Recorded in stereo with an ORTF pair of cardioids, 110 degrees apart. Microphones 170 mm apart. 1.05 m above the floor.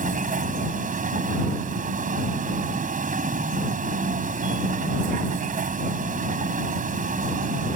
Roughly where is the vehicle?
Ahead right.